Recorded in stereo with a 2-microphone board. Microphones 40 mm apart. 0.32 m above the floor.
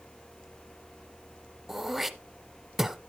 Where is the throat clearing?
10° right (ahead or behind), 0.6 m.